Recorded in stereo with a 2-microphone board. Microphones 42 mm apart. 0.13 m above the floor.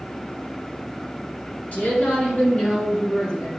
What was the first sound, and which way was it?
A woman speaking, 35° left (ahead or behind).